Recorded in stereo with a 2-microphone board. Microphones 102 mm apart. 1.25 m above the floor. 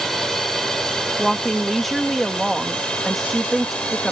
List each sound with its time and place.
0.0 s a drone: 5° left (ahead or behind); by 4.1 s 10° left (ahead or behind)
1.2 s a woman speaking: centre (ahead or behind)